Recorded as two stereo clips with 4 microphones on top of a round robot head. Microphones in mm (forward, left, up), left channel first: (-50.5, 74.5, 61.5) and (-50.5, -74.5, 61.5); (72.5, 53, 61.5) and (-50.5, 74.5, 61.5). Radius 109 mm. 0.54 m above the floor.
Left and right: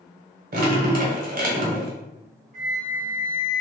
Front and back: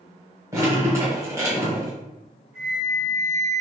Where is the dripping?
115° right, 1.4 m.